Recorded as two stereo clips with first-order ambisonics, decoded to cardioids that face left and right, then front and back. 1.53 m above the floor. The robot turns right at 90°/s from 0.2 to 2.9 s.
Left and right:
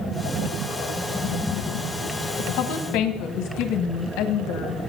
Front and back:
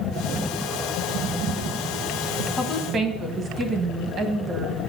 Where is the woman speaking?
70° left, 1.3 m; by 4.8 s 120° left, 1.3 m.